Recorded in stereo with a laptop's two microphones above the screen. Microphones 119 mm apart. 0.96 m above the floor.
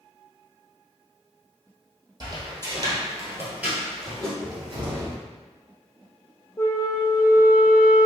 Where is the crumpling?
I don't hear crumpling.